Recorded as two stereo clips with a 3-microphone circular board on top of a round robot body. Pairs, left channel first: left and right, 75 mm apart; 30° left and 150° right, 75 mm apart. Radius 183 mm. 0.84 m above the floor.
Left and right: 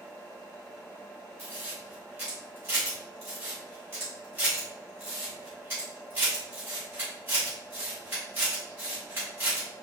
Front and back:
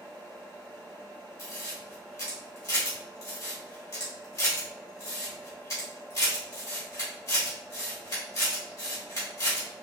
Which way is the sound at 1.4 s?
20° right.